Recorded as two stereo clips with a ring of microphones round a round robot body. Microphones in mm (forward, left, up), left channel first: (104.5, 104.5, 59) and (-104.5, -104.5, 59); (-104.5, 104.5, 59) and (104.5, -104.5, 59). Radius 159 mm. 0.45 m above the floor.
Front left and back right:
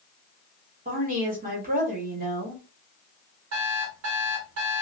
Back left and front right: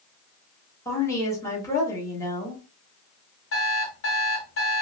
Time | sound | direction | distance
0.8 | a woman speaking | 155° right | 1.4 m
3.5 | an alarm clock | 175° right | 1.2 m